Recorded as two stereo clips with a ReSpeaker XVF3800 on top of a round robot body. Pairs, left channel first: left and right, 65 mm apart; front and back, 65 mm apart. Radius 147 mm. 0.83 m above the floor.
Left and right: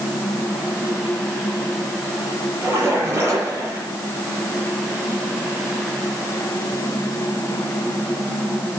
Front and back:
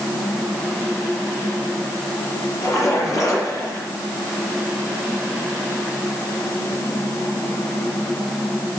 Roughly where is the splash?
Ahead right.